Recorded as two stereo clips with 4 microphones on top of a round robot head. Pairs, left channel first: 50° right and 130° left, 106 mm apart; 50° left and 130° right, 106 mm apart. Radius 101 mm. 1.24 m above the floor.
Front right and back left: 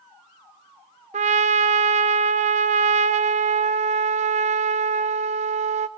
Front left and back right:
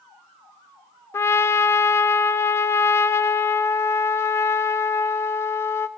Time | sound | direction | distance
1.1 | a trumpet | 115° left | 0.5 m